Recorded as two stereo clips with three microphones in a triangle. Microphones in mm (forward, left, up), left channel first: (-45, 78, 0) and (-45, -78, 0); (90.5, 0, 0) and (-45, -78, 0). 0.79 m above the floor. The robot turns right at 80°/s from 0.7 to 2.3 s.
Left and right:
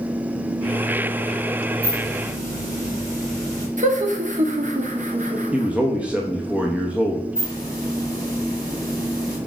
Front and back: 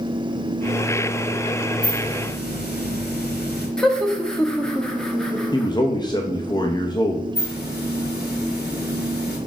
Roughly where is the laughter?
Ahead right.